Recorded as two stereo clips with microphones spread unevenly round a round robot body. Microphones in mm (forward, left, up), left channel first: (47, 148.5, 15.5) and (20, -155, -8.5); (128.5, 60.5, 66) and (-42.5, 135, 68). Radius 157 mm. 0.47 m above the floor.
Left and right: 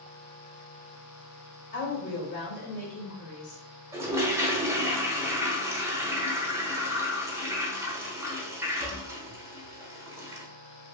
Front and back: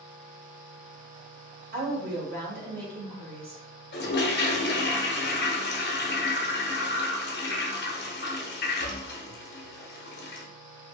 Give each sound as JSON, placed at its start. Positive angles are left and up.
{"t": 1.7, "sound": "a woman speaking", "azimuth_deg": 140, "distance_m": 1.6}
{"t": 3.9, "sound": "a toilet flushing", "azimuth_deg": -15, "distance_m": 0.8}